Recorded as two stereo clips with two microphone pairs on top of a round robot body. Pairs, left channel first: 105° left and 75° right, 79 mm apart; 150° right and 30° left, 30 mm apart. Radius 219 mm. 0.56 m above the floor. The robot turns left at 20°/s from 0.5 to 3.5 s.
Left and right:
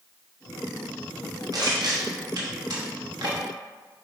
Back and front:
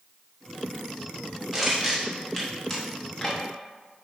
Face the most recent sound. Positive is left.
turn(degrees=-85)